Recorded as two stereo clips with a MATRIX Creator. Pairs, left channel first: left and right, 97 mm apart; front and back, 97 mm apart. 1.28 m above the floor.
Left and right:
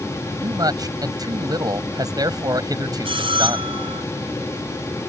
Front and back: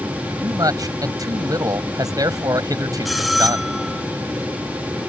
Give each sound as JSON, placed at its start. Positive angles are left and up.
{"t": 0.4, "sound": "a man speaking", "azimuth_deg": -135}
{"t": 3.0, "sound": "a bell", "azimuth_deg": -90}